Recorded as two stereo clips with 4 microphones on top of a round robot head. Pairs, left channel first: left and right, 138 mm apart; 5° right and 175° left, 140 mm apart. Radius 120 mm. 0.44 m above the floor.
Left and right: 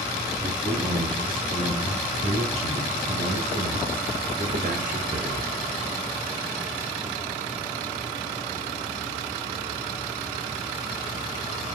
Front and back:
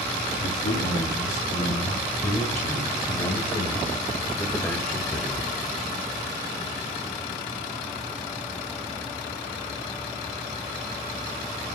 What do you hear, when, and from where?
0.4 s a man speaking: 30° right, 3 m; by 5.5 s 100° right, 2.0 m